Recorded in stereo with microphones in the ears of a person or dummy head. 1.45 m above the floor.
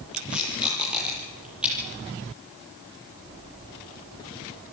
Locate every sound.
0.1 s tape being pulled: centre (ahead or behind), 8.5 m